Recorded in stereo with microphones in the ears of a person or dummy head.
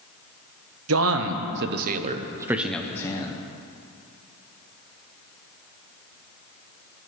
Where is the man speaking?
85° right, 1.5 m; by 3.4 s 25° left (ahead or behind), 1.3 m.